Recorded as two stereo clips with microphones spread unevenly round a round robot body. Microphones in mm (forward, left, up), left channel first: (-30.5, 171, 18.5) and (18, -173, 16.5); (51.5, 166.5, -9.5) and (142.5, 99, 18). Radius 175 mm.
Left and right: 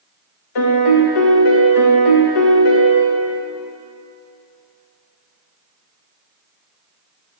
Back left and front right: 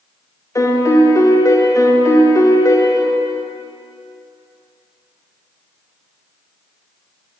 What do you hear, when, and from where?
0.6 s a piano: 90° left, 1.0 m